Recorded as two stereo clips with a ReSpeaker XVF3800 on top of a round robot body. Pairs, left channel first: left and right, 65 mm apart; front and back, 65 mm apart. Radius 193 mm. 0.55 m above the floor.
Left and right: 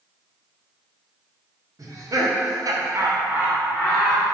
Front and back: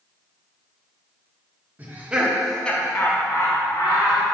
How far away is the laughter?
About 1.8 m.